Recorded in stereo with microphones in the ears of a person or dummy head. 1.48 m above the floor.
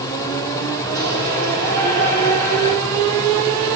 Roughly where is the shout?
Right.